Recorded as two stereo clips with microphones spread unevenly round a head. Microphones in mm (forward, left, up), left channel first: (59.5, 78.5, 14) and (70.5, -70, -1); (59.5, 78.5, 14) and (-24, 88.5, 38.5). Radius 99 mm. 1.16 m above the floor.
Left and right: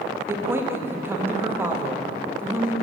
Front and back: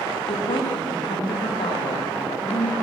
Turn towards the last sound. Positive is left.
turn(degrees=-10)